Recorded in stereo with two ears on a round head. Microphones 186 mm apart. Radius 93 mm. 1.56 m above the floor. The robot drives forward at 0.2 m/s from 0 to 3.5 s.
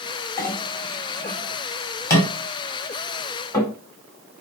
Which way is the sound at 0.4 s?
15° left (ahead or behind).